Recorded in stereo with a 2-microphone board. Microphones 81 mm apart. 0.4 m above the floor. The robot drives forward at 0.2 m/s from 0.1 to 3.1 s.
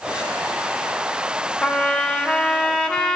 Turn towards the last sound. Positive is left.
turn(degrees=10)  # may be behind; listen again after turning